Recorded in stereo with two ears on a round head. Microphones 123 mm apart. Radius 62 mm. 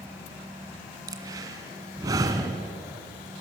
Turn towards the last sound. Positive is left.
turn(degrees=-25)  # may be behind; listen again after turning